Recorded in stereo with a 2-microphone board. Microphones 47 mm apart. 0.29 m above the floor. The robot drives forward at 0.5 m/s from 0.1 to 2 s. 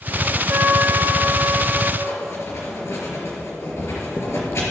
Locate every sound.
0.5 s a trumpet: 45° right (ahead or behind), 1.5 m; by 1.9 s 35° right (ahead or behind), 1.9 m
2.0 s writing: 60° left (ahead or behind), 4 m